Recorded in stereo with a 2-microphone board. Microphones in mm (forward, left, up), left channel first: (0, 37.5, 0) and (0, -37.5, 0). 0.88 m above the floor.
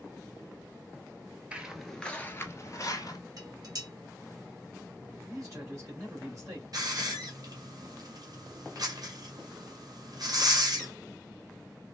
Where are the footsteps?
15° right (ahead or behind), 1.0 m; by 3.2 s 55° left (ahead or behind), 1.4 m.